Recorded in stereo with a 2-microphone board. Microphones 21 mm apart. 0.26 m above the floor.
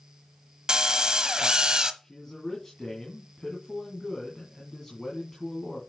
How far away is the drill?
About 1.0 m.